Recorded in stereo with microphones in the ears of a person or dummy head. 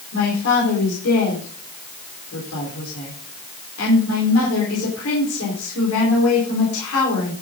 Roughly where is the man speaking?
Left.